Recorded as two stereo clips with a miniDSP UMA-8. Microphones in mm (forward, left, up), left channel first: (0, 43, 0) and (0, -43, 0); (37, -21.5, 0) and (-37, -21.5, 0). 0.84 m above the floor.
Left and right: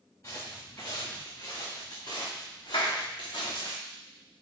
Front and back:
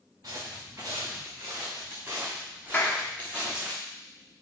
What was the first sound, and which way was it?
Footsteps, 140° left.